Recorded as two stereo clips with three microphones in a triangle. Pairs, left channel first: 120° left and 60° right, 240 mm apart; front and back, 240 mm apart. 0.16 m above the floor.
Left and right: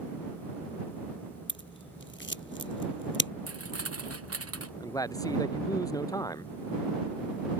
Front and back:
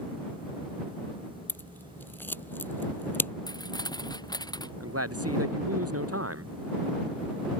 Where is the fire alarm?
I don't hear a fire alarm.